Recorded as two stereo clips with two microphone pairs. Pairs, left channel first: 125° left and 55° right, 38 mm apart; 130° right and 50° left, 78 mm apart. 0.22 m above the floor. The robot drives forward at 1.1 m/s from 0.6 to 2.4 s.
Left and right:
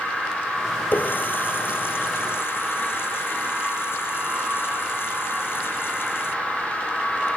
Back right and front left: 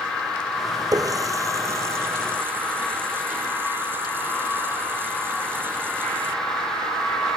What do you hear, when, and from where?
0.9 s a running tap: 90° left; by 6.3 s 115° left